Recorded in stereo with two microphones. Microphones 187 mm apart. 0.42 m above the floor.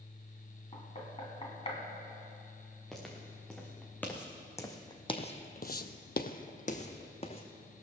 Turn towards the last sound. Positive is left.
turn(degrees=30)  # may be behind; listen again after turning